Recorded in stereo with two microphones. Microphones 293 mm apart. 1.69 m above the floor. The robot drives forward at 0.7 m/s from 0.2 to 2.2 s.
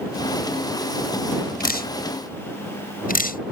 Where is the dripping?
30° left (ahead or behind).